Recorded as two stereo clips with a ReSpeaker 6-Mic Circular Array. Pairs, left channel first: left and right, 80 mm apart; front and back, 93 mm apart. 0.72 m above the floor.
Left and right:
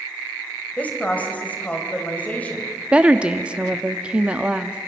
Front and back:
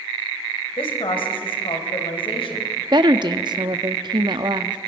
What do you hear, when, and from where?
0.8 s a woman speaking: 20° left, 3.5 m
2.9 s a woman speaking: 165° right, 0.9 m